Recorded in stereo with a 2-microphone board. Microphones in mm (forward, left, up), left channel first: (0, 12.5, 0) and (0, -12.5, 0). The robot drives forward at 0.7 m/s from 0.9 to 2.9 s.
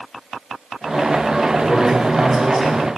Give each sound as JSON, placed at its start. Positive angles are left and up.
{"t": 1.6, "sound": "a man speaking", "side_deg": -25, "distance_m": 1.3}